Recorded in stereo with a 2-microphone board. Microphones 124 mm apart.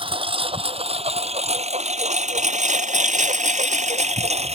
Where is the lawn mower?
45° right (ahead or behind); by 4.5 s 60° right (ahead or behind).